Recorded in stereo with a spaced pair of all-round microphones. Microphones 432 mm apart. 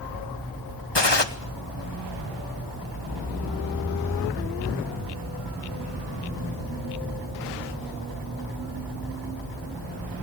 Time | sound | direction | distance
0.9 | a gunshot | 70° left (ahead or behind) | 1.5 m